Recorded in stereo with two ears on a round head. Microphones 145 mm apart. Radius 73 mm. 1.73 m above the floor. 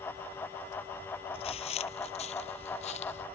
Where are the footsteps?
35° left (ahead or behind); by 3.3 s 40° left (ahead or behind).